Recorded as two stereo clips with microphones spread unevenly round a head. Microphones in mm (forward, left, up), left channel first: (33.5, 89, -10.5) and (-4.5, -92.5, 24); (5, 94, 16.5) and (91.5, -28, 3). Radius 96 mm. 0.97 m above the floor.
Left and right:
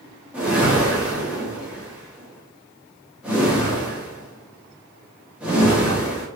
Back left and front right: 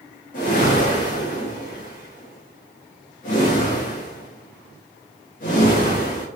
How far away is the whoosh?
About 0.8 m.